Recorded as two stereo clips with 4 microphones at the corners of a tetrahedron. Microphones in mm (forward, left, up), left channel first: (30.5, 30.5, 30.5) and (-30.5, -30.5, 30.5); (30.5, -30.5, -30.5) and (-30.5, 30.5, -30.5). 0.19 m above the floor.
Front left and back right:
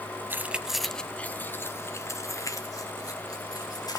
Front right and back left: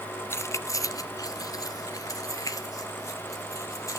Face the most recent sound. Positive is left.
turn(degrees=5)